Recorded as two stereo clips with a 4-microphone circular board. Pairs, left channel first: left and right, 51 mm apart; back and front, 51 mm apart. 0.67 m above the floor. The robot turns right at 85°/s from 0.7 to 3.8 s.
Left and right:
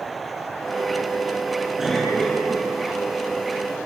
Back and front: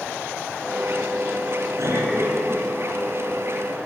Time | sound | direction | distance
1.8 | a cough | 10° right | 9.5 m